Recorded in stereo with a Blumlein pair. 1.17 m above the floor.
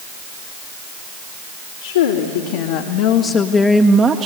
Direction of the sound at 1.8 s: 65° left.